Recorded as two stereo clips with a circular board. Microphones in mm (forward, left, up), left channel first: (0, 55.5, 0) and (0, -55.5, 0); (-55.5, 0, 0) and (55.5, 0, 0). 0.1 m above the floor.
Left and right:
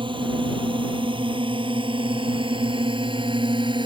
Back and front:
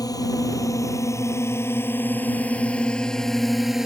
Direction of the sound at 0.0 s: 125° right.